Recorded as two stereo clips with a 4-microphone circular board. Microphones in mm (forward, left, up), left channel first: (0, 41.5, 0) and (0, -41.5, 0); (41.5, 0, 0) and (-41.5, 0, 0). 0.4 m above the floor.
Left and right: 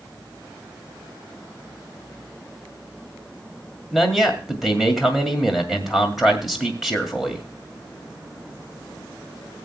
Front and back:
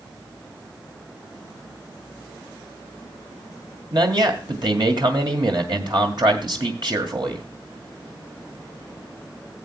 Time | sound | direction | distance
3.9 | a man speaking | straight behind | 2 m